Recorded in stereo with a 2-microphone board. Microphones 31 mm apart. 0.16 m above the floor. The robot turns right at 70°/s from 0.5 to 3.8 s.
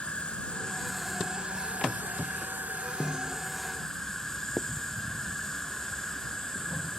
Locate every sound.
0.0 s an insect: 145° left; by 7.0 s 15° left
3.0 s a snare drum: 35° right (ahead or behind); by 3.4 s 60° right (ahead or behind)
4.6 s writing: 10° left (ahead or behind)